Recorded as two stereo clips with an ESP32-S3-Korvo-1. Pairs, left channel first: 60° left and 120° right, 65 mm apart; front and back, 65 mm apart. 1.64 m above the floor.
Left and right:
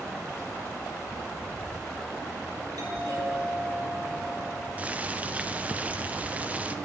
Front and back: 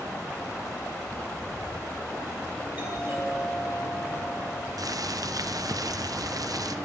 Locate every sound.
2.8 s a doorbell: 115° right, 8.5 m
4.8 s boiling: 175° left, 0.8 m